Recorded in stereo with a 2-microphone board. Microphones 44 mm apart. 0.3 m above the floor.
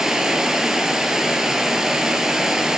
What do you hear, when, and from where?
0.0 s running water: 10° right (ahead or behind), 0.9 m